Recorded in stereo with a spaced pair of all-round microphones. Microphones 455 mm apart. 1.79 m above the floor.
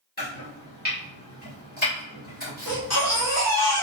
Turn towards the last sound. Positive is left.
turn(degrees=35)  # may be behind; listen again after turning